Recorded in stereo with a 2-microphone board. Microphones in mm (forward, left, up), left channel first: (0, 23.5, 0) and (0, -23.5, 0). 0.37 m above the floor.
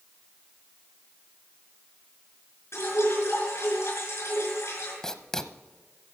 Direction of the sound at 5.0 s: 10° left (ahead or behind).